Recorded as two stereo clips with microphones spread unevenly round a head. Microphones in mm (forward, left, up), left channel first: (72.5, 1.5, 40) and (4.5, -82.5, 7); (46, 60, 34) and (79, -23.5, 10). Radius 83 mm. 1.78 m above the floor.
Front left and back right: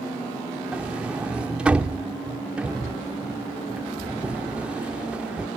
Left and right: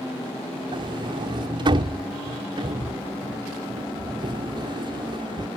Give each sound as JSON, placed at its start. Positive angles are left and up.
{"t": 0.7, "sound": "a sliding door", "azimuth_deg": -35}